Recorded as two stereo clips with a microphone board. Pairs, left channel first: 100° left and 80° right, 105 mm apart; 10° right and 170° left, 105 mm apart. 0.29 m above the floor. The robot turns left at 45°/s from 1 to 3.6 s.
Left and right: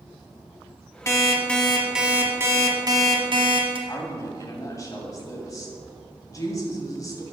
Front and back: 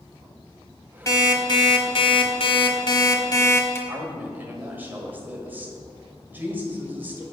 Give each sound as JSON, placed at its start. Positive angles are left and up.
{"t": 1.1, "sound": "an alarm clock", "azimuth_deg": 45, "distance_m": 1.1}
{"t": 3.9, "sound": "a woman speaking", "azimuth_deg": 115, "distance_m": 1.5}